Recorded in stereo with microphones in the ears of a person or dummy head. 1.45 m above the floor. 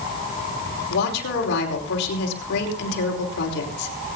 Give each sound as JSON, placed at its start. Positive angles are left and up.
{"t": 0.9, "sound": "a woman speaking", "side_deg": 60, "distance_m": 5.0}